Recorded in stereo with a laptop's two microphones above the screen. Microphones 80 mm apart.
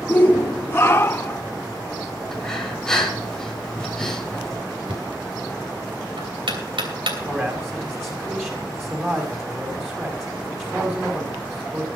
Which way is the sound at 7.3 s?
25° right (ahead or behind).